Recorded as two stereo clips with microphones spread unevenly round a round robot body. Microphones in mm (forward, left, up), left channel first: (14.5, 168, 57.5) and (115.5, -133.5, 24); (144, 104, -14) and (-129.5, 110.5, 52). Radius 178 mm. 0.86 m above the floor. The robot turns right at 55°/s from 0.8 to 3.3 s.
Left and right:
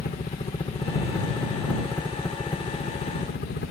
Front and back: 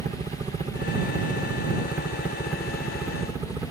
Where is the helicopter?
125° left; by 3.7 s 85° left.